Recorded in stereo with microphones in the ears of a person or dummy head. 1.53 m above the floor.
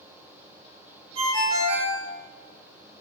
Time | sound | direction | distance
1.1 | a ringtone | 55° right (ahead or behind) | 1.1 m